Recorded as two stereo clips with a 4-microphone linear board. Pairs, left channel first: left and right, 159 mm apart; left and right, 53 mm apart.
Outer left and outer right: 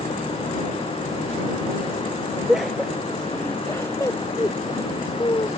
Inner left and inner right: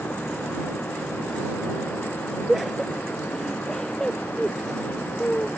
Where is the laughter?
5° right (ahead or behind); by 5.5 s 30° left (ahead or behind).